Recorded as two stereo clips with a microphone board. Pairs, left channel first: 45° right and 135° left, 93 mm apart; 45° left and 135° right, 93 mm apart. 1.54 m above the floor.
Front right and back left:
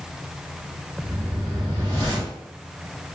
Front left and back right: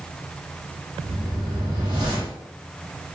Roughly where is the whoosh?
Right.